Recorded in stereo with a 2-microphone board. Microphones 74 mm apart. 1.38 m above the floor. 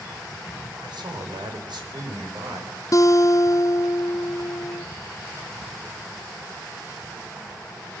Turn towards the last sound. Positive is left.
turn(degrees=45)  # may be behind; listen again after turning